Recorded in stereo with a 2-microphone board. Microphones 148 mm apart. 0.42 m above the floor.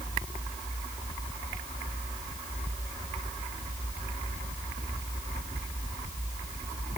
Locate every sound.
Only background noise.